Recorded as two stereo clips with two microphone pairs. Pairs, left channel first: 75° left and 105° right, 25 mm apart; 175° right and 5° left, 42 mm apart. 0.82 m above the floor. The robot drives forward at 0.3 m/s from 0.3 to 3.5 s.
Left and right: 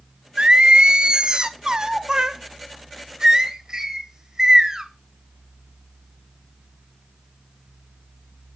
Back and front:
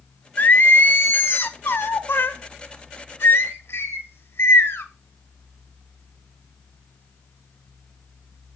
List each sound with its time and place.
0.4 s singing: 140° right, 0.6 m; by 4.8 s 165° right, 1.4 m